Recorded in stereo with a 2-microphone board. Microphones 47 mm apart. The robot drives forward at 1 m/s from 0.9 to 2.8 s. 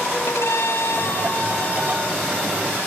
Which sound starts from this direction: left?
A violin, at 0.3 s.